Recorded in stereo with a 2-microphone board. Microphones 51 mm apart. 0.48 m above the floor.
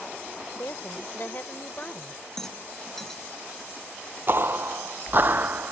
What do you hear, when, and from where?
0.5 s a woman speaking: 55° left (ahead or behind); by 2.2 s 30° left (ahead or behind)
2.4 s a rattle: 10° left (ahead or behind)
4.3 s footsteps: 50° right (ahead or behind); by 5.7 s 40° right (ahead or behind)